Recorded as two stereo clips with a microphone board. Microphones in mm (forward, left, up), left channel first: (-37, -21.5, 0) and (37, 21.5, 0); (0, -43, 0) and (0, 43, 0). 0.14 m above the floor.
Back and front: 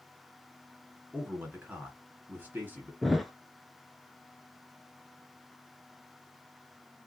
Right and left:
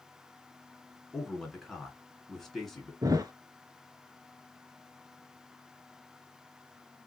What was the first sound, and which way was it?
A man speaking, 10° right.